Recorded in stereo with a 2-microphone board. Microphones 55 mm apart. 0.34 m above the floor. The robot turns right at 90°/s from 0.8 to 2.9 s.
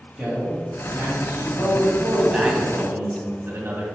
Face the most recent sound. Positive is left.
turn(degrees=-120)